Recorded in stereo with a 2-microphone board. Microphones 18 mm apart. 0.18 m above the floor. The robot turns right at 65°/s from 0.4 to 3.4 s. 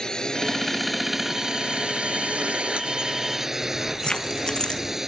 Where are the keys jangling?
35° left (ahead or behind).